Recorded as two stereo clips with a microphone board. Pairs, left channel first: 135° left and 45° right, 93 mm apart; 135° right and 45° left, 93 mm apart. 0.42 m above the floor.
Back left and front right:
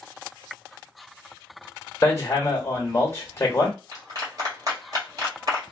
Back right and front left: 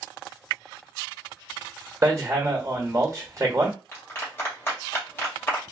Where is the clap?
80° right, 1.5 m.